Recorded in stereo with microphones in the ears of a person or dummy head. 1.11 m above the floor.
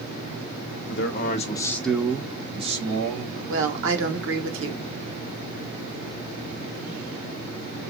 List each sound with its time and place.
0.9 s a man speaking: 55° left (ahead or behind), 0.7 m; by 3.4 s 45° right (ahead or behind), 1.4 m
3.5 s a woman speaking: 65° right (ahead or behind), 1.1 m